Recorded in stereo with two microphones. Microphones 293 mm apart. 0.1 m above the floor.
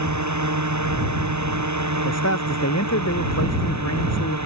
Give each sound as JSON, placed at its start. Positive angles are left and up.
{"t": 0.0, "sound": "a drone", "side_deg": -75}
{"t": 2.0, "sound": "a man speaking", "side_deg": 60}